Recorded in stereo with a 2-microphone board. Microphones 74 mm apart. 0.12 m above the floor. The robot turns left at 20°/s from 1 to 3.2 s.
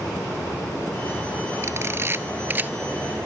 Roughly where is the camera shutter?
Right.